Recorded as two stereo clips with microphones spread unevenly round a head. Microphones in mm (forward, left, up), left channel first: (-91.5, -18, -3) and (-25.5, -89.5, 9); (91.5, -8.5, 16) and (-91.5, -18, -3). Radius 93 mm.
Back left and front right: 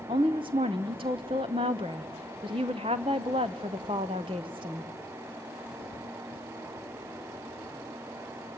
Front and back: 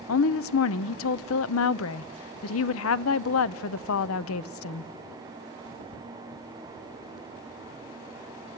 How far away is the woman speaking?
About 0.6 m.